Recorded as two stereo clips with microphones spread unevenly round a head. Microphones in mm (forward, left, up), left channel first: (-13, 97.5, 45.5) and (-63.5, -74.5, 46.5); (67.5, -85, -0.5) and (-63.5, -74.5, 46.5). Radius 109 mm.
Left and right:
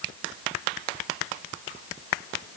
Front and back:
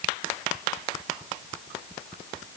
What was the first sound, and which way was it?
Only background noise.